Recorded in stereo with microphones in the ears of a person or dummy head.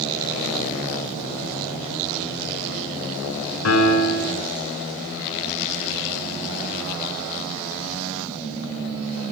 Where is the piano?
85° left, 7 m.